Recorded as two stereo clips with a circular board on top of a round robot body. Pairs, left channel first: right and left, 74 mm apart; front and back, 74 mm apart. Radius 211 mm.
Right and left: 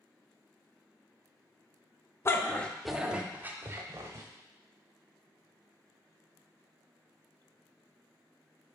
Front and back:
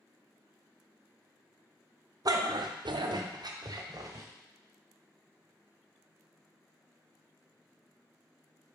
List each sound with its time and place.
2.2 s a dog barking: 145° right, 0.7 m; by 4.3 s 135° left, 1.3 m